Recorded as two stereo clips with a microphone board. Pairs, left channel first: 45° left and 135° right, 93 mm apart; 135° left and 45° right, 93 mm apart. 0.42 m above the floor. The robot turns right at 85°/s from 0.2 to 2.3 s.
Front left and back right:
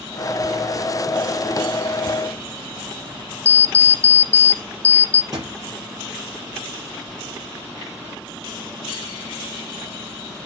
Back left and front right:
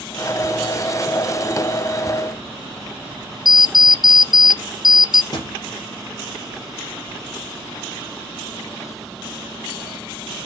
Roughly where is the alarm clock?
Right.